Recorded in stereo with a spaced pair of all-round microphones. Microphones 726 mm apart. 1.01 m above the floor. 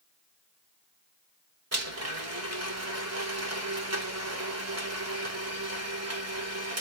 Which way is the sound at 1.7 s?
20° right (ahead or behind).